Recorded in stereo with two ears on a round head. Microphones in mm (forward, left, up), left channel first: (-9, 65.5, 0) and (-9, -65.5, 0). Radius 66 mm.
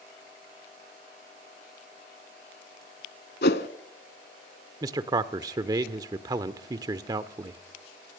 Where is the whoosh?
80° left, 1.0 m.